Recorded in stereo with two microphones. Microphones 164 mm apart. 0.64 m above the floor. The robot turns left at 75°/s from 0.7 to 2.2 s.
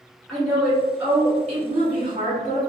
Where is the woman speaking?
10° left, 1.7 m; by 2.6 s 105° right, 1.7 m.